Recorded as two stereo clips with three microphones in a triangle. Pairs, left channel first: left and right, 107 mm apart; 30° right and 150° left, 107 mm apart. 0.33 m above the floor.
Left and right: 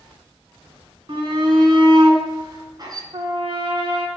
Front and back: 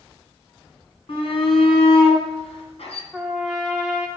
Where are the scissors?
I don't hear scissors.